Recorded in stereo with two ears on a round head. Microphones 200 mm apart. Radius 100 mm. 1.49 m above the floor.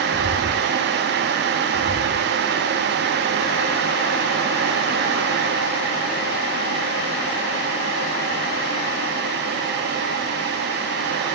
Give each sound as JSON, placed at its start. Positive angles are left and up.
{"t": 0.1, "sound": "footsteps", "side_deg": 55}